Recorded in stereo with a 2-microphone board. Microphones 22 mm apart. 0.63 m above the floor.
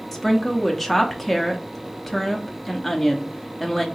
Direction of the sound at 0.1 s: Centre (ahead or behind).